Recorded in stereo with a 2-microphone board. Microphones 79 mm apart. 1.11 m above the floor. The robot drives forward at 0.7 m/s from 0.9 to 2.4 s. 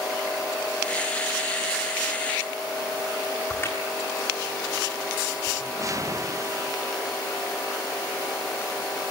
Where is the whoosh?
45° right (ahead or behind), 0.9 m.